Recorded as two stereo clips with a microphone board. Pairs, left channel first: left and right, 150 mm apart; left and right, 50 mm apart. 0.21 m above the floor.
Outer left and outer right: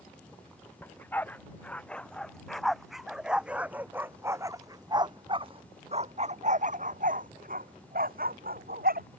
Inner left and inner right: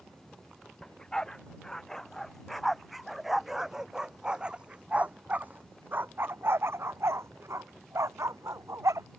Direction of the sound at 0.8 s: 15° left (ahead or behind).